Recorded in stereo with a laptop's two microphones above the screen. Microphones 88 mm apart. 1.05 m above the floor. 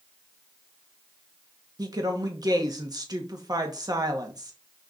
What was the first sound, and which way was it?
A woman speaking, 45° right (ahead or behind).